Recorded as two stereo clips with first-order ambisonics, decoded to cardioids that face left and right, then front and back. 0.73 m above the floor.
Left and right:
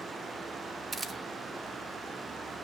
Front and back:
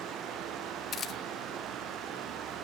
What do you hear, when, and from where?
0.9 s a camera shutter: 20° right, 1.1 m